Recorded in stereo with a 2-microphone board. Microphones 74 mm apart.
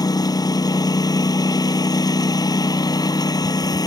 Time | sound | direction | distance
0.0 | a lawn mower | 60° left (ahead or behind) | ?